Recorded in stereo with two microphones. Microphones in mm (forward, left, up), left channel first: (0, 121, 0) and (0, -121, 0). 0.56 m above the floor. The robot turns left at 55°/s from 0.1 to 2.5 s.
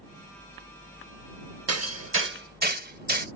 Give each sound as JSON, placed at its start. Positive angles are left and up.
{"t": 1.7, "sound": "hammering", "side_deg": -85}